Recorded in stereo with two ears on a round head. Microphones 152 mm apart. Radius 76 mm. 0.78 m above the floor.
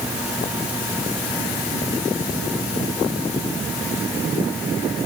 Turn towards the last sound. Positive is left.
No sound to turn to.